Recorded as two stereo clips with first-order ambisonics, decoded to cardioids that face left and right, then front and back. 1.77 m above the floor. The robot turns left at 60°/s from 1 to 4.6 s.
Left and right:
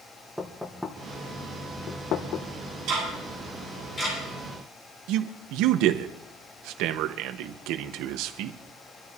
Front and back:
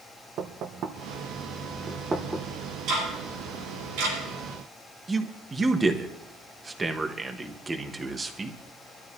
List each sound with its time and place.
0.4 s knocking: straight behind, 1.1 m; by 2.5 s 95° left, 1.1 m
2.9 s ticking: 130° right, 9.5 m; by 4.2 s 150° left, 9.5 m
5.1 s a man speaking: 105° right, 1.2 m